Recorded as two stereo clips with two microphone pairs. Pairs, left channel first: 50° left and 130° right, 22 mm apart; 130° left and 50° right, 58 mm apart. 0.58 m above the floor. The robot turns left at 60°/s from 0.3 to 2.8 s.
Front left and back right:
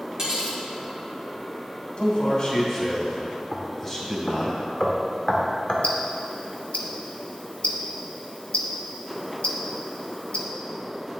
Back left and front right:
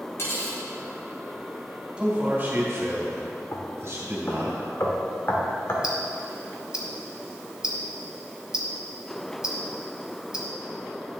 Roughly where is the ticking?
Ahead left.